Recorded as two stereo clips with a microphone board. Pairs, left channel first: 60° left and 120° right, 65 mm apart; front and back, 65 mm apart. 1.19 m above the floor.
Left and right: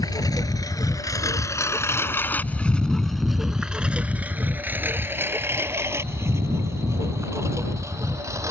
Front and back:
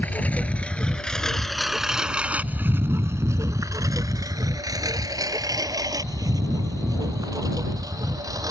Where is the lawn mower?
65° left; by 8.5 s 160° right.